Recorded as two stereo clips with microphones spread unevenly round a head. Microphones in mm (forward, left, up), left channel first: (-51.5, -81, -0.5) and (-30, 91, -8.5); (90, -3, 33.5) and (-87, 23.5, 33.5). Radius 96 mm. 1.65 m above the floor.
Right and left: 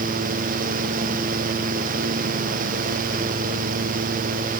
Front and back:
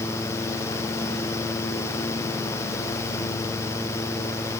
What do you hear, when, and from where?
Only background noise.